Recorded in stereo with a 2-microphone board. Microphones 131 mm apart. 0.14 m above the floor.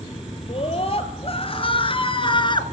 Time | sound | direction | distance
0.5 | a scream | 50° left (ahead or behind) | 3.5 m